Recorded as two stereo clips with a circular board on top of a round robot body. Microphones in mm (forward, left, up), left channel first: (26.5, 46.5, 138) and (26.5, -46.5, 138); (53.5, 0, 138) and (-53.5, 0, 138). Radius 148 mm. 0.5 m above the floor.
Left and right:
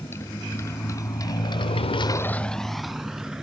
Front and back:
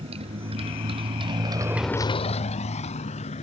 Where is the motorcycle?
155° left; by 3.4 s 5° right.